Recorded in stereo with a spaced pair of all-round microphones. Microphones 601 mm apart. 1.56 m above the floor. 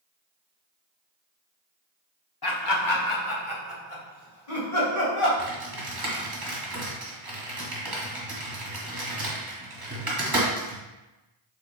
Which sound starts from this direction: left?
Laughter, at 2.4 s.